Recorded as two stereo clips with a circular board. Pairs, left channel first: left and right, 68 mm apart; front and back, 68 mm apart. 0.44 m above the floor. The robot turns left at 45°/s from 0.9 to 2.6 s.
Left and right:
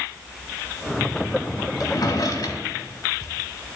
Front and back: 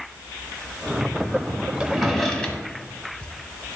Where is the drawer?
100° left, 1.0 m; by 3.3 s 65° left, 1.0 m.